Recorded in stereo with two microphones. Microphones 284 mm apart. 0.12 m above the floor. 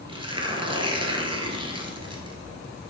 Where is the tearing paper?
20° right (ahead or behind), 1.3 m.